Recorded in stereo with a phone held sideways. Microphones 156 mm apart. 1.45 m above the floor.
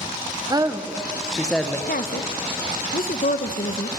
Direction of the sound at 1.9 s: 70° left (ahead or behind).